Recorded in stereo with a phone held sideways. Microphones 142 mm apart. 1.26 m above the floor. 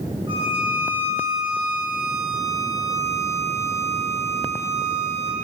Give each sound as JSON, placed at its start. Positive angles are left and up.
{"t": 0.3, "sound": "a violin", "side_deg": -35, "distance_m": 2.0}